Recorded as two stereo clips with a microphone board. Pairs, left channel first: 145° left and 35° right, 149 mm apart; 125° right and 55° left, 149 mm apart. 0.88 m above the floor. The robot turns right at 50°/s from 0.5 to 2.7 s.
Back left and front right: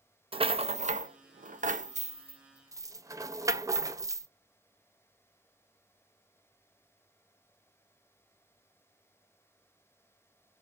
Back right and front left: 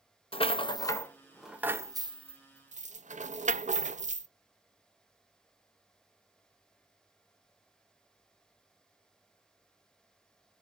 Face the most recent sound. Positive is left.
turn(degrees=30)